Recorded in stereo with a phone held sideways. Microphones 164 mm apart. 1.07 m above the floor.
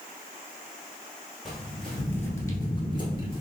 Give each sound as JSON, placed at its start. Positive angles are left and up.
{"t": 1.4, "sound": "footsteps", "side_deg": 0, "distance_m": 1.6}